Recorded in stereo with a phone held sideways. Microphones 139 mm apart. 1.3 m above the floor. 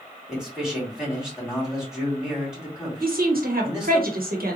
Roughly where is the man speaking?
Centre.